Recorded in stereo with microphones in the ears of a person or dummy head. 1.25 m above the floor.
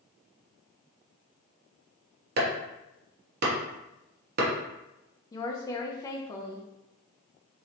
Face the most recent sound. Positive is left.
turn(degrees=15)  # may be behind; listen again after turning